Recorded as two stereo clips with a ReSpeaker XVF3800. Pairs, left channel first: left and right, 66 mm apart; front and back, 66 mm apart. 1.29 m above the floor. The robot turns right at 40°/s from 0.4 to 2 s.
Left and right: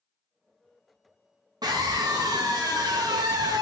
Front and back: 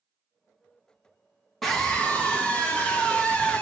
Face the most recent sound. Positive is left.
turn(degrees=-75)